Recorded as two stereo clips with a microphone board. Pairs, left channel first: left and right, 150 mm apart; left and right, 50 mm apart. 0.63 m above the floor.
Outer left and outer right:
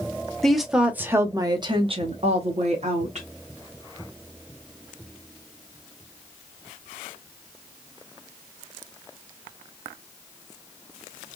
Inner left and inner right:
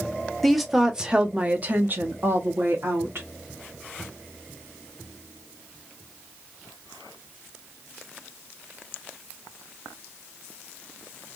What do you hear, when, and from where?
0.4 s a woman speaking: 5° left (ahead or behind), 0.8 m; by 3.3 s 50° right (ahead or behind), 1.2 m